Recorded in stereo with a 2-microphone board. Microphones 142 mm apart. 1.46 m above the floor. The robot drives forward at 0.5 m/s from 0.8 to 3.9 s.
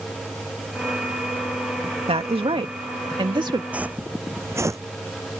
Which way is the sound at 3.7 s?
10° right (ahead or behind).